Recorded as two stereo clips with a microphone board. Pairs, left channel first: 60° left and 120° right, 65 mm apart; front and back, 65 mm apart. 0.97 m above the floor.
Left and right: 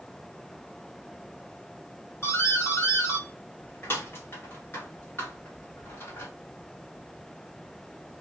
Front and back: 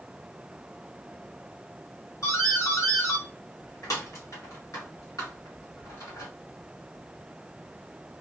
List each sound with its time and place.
2.2 s a doorbell: 15° left, 1.6 m